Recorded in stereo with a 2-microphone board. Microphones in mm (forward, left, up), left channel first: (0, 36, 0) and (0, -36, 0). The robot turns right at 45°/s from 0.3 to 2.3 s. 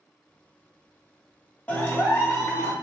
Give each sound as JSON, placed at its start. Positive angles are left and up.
{"t": 1.7, "sound": "a clap", "side_deg": 20, "distance_m": 0.7}